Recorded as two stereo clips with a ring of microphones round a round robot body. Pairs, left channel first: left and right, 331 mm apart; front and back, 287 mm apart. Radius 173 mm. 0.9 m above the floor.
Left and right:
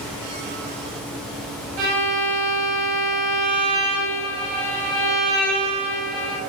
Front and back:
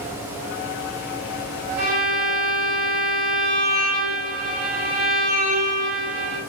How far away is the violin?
About 6.5 m.